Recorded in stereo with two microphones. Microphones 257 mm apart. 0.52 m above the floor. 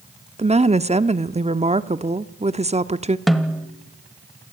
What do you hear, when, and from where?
0.4 s a woman speaking: 25° right (ahead or behind), 0.7 m
3.3 s a snare drum: centre (ahead or behind), 1.3 m